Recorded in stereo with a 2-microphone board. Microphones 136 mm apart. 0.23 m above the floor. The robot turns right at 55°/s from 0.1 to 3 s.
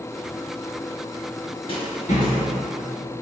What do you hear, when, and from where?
1.7 s a rattle: 40° left (ahead or behind), 0.8 m; by 3.2 s 65° left (ahead or behind), 0.8 m